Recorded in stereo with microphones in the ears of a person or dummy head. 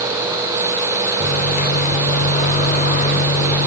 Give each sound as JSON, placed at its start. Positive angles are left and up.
{"t": 1.2, "sound": "a microwave", "side_deg": 40, "distance_m": 4.0}